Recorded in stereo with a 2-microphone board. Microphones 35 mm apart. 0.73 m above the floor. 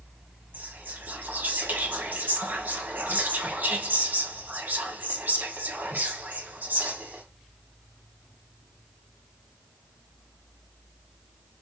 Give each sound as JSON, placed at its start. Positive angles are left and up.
{"t": 0.5, "sound": "whispering", "side_deg": -70, "distance_m": 1.6}